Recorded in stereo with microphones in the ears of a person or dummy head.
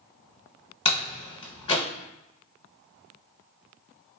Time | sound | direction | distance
0.8 | a door slam | 40° left (ahead or behind) | 0.8 m